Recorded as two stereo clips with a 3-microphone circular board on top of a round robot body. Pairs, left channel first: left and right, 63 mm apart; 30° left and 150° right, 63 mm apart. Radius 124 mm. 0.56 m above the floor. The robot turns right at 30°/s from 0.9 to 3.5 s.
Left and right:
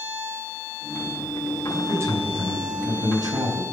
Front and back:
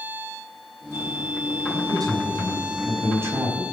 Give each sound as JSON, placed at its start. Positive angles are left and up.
{"t": 1.7, "sound": "a man speaking", "azimuth_deg": -150, "distance_m": 5.0}